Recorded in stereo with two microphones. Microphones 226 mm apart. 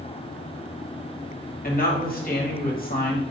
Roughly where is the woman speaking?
Left.